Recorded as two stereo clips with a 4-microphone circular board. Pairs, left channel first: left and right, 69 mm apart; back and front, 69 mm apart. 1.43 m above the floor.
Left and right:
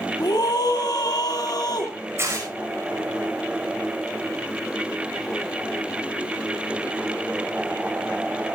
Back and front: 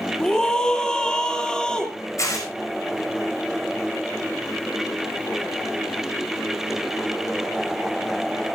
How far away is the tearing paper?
About 6 m.